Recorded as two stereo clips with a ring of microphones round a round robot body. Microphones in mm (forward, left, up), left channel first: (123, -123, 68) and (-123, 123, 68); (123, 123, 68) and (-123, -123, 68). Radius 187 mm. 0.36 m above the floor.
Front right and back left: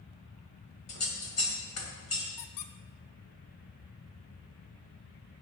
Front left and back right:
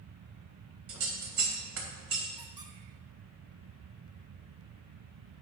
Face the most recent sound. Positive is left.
turn(degrees=-55)